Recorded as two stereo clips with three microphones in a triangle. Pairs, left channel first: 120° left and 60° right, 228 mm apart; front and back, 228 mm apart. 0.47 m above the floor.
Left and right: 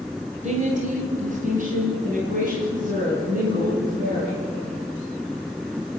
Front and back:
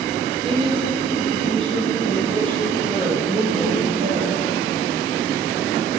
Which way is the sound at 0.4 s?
115° right.